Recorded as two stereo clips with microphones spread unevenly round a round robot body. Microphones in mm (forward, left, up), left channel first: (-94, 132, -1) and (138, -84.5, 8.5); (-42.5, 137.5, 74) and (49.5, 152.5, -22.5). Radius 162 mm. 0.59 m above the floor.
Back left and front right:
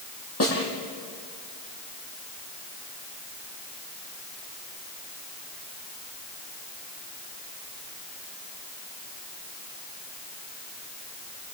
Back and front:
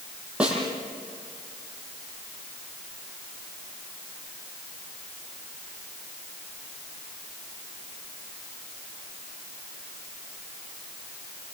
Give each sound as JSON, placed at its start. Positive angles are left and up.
{"t": 0.4, "sound": "a snare drum", "azimuth_deg": 90, "distance_m": 10.0}